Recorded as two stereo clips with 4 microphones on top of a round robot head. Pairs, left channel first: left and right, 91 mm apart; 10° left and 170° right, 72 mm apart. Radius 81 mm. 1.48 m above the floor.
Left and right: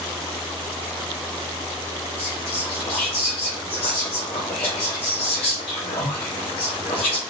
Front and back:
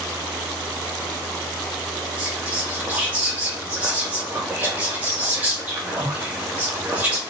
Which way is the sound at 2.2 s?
125° left.